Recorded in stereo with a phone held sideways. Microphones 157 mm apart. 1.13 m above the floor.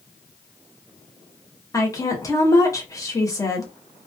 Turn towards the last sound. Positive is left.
turn(degrees=20)  # may be behind; listen again after turning